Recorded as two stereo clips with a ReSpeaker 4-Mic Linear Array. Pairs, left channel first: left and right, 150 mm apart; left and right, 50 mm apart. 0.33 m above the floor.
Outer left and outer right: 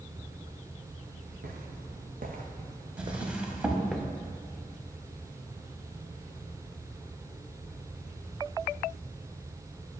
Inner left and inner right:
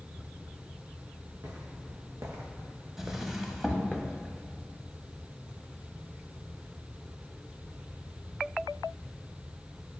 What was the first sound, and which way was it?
Footsteps, 80° right.